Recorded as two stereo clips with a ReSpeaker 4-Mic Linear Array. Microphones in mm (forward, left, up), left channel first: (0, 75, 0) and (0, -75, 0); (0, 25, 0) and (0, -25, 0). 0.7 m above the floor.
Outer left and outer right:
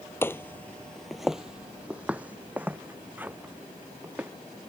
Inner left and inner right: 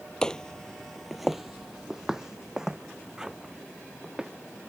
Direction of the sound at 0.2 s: 15° left (ahead or behind).